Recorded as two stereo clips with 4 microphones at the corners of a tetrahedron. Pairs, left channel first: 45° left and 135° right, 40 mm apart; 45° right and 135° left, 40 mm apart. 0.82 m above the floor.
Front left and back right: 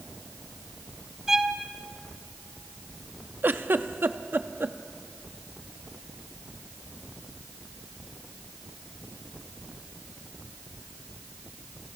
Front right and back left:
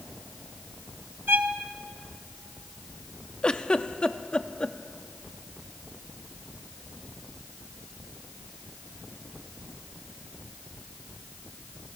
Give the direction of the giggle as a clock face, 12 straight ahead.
4 o'clock.